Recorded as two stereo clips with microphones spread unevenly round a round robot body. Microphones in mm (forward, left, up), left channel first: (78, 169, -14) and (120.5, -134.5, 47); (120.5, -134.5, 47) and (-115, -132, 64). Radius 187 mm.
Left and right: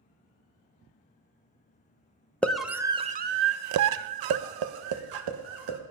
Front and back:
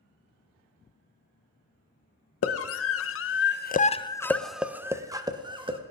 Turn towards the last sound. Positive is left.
turn(degrees=-110)